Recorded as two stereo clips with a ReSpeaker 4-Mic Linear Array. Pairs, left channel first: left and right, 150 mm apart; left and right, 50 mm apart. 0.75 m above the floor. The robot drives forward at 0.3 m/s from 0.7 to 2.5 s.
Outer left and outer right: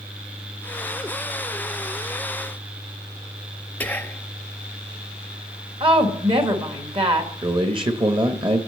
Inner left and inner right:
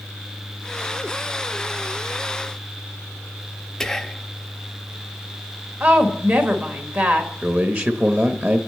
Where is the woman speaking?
35° right (ahead or behind), 1.3 m.